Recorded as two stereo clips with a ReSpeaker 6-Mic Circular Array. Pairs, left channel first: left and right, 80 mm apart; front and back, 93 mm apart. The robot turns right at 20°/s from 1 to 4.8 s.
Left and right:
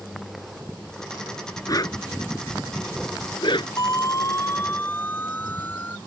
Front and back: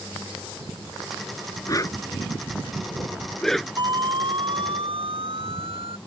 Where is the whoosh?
50° left; by 3.7 s 90° left.